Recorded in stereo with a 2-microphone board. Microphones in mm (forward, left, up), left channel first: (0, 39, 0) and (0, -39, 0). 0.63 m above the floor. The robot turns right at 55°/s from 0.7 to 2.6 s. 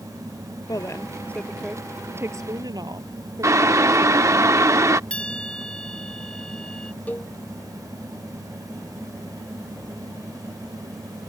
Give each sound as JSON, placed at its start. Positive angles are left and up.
{"t": 0.7, "sound": "a woman speaking", "azimuth_deg": 130}
{"t": 3.4, "sound": "boiling", "side_deg": -40}
{"t": 5.1, "sound": "a bell", "side_deg": 15}
{"t": 7.1, "sound": "a cowbell", "side_deg": 20}